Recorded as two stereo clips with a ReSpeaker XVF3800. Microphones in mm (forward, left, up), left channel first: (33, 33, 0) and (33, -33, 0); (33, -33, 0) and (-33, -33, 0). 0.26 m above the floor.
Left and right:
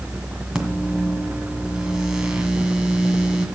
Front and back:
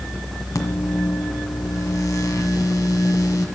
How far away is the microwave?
About 1.7 m.